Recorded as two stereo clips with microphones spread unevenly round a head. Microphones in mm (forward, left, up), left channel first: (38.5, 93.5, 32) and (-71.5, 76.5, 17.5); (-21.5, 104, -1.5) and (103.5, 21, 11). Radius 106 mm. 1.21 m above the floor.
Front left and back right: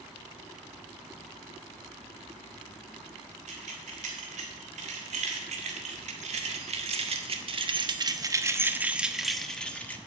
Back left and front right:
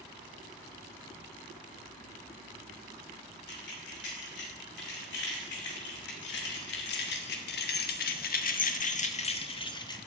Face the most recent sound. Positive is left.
turn(degrees=80)